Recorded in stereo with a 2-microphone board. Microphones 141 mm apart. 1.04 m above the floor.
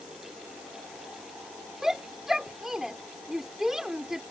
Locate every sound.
1.8 s a shout: 5° right (ahead or behind)